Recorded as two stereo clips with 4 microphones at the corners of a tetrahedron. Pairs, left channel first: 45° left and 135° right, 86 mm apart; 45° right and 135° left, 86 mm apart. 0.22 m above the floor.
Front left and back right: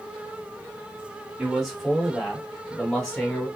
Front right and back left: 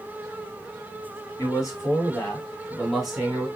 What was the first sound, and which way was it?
A man speaking, 50° right.